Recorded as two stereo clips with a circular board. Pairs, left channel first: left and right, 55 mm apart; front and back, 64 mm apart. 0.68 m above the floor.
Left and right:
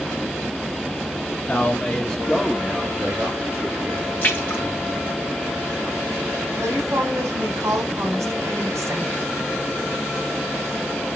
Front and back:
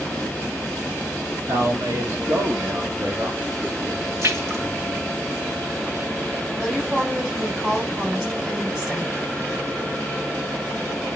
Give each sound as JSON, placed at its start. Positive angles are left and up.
{"t": 1.5, "sound": "a man speaking", "azimuth_deg": 150, "distance_m": 1.8}
{"t": 4.2, "sound": "a splash", "azimuth_deg": 145, "distance_m": 2.0}
{"t": 6.6, "sound": "a woman speaking", "azimuth_deg": -105, "distance_m": 3.5}